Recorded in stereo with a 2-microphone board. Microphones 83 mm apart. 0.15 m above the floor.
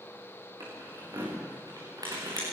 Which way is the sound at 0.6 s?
45° right (ahead or behind).